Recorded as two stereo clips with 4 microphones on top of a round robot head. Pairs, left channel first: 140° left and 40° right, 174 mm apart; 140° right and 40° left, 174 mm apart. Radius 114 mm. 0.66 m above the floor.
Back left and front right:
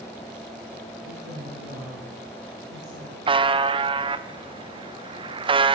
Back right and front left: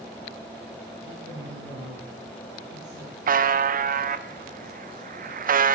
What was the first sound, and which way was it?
A woman speaking, straight ahead.